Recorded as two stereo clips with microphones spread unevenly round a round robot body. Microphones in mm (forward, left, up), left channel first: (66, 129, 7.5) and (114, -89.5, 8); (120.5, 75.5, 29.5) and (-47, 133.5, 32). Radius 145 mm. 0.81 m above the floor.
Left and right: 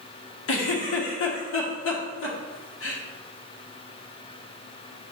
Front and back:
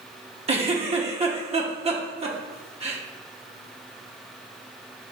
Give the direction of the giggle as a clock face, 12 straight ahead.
8 o'clock.